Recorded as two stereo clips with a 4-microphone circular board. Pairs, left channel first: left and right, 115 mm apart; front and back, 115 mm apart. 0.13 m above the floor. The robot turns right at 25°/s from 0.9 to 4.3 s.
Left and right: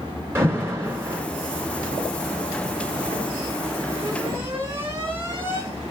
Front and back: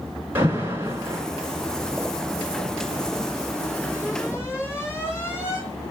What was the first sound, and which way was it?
An alarm, 130° right.